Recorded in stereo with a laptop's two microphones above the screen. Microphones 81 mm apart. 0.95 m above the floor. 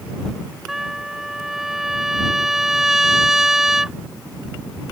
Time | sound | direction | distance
0.7 | a trumpet | 5° right (ahead or behind) | ?